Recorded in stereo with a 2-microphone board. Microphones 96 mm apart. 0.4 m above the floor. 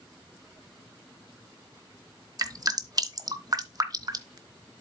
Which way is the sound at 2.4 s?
40° right (ahead or behind).